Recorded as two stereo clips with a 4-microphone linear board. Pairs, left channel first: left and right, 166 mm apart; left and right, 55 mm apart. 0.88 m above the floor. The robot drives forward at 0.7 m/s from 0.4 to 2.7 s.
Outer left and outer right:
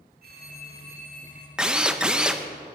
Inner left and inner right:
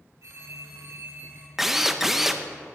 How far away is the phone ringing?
About 2.5 m.